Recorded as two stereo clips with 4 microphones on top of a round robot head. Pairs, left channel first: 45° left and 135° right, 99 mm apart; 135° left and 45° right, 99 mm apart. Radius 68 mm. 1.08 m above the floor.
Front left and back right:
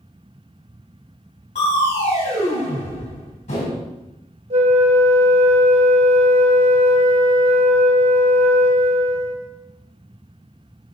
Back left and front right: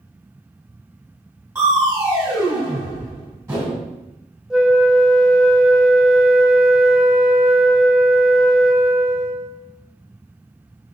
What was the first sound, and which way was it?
Crushing, 20° left.